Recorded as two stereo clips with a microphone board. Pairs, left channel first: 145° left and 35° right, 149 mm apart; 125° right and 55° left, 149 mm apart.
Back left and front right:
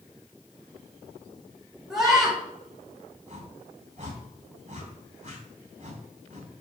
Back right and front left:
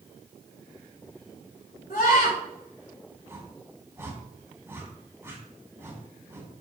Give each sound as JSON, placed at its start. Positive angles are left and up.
{"t": 1.9, "sound": "a scream", "azimuth_deg": -120, "distance_m": 4.5}
{"t": 3.3, "sound": "a whoosh", "azimuth_deg": -15, "distance_m": 2.5}